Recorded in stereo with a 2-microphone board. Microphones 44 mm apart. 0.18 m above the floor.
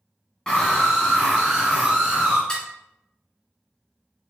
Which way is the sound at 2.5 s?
20° left (ahead or behind).